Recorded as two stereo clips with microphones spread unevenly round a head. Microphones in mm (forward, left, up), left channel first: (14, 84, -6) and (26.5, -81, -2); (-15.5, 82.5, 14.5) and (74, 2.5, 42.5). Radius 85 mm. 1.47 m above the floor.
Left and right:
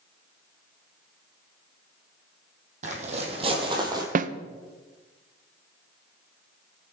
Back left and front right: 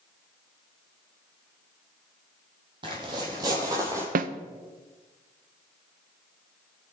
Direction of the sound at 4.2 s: 45° right.